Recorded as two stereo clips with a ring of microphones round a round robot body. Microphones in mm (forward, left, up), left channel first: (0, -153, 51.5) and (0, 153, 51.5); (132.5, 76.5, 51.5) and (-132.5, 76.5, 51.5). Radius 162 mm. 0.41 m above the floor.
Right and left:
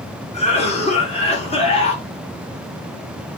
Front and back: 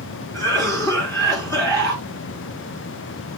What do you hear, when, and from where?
0.3 s a cough: 60° right, 1.4 m